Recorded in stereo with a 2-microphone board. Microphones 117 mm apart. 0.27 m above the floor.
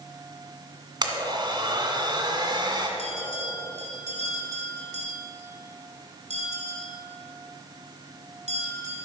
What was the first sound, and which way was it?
A blender, 40° right (ahead or behind).